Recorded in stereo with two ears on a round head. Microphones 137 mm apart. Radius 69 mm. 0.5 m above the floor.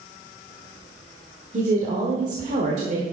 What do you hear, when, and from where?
1.5 s a woman speaking: 50° right (ahead or behind), 1.4 m